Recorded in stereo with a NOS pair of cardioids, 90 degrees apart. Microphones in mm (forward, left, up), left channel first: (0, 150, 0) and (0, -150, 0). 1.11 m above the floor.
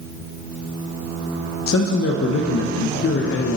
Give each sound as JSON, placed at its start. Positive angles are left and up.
{"t": 1.7, "sound": "a man speaking", "azimuth_deg": 50, "distance_m": 0.8}